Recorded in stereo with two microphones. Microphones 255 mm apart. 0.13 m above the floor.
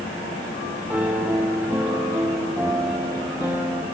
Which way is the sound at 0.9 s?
5° right (ahead or behind).